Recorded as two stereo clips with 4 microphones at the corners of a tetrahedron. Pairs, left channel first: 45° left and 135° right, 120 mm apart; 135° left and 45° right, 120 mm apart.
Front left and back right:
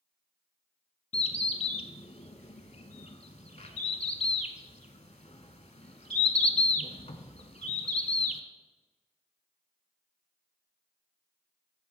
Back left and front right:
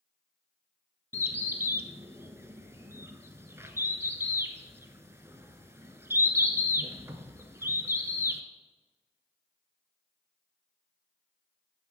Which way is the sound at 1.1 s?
20° left.